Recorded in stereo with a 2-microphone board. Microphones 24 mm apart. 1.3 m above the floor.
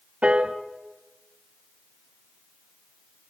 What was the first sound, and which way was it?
A piano, 55° right (ahead or behind).